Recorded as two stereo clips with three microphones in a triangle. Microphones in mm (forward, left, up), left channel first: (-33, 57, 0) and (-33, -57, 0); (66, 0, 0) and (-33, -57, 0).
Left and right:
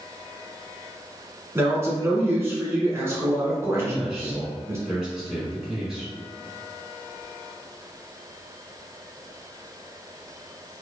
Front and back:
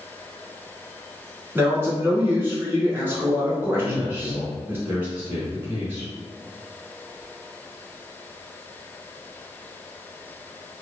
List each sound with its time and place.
1.6 s a man speaking: 115° right, 1.1 m
3.8 s a man speaking: 170° right, 1.1 m